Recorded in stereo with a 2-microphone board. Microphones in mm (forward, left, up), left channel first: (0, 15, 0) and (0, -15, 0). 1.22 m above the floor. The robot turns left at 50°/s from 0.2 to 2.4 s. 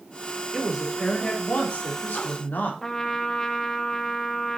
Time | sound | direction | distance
0.5 | a woman speaking | straight behind | 3.5 m
2.8 | a trumpet | 15° left (ahead or behind) | 1.3 m